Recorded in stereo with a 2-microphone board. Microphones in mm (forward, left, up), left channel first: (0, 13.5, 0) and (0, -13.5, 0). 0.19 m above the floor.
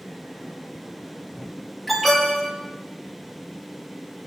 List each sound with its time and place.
1.9 s an alarm: centre (ahead or behind), 5 m